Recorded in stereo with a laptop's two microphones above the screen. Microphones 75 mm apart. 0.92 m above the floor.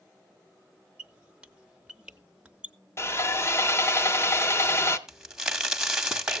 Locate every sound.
1.0 s a squeak: 15° right (ahead or behind), 0.6 m
3.0 s sawing: 35° left (ahead or behind), 0.7 m
5.1 s a crack: 10° right (ahead or behind), 0.7 m